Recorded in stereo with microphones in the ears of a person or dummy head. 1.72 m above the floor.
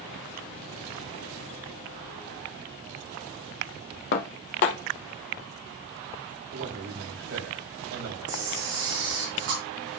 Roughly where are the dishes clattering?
Left.